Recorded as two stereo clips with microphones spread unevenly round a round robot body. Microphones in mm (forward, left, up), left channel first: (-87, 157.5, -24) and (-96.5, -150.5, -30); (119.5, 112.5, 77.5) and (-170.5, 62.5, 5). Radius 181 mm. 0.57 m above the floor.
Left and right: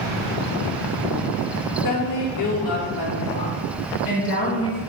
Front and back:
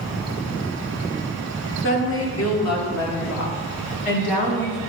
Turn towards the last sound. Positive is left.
turn(degrees=15)